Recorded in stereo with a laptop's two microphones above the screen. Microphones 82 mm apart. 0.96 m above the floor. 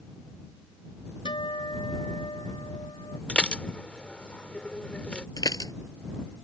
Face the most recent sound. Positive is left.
turn(degrees=50)  # may be behind; listen again after turning